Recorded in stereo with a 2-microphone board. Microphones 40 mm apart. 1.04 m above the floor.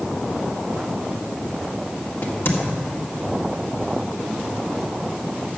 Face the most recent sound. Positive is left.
turn(degrees=70)  # may be behind; listen again after turning